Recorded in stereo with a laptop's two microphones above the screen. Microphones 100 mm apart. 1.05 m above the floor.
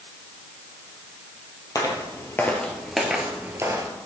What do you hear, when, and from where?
1.8 s footsteps: 35° left (ahead or behind), 1.6 m; by 3.9 s 35° right (ahead or behind), 1.3 m